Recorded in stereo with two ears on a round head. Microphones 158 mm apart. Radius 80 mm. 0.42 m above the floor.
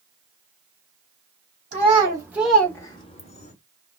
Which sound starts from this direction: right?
A child speaking, at 1.7 s.